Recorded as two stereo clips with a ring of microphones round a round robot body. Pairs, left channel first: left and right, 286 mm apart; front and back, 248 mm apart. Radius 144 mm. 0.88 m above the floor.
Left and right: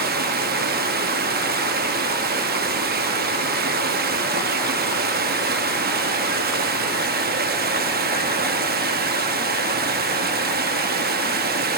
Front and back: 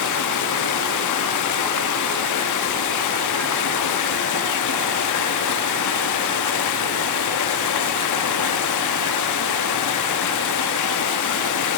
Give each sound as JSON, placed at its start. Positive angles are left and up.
{"t": 0.0, "sound": "running water", "azimuth_deg": -30, "distance_m": 0.8}